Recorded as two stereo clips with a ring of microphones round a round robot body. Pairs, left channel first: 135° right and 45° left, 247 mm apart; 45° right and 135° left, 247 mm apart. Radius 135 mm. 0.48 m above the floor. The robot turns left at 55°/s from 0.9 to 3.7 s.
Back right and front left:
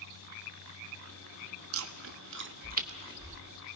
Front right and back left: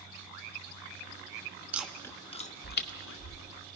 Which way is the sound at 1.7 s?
55° left.